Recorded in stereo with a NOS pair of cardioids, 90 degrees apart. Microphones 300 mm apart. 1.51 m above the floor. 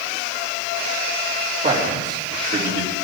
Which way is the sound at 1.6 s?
35° right.